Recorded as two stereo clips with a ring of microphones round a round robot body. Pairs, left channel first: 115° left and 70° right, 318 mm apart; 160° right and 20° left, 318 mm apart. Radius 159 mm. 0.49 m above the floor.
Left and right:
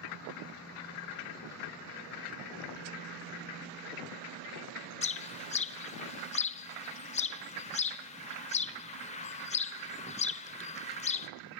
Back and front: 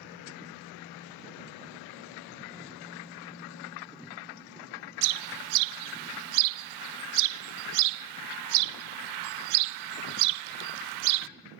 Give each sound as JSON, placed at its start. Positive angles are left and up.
{"t": 5.0, "sound": "a bird", "azimuth_deg": 40, "distance_m": 0.5}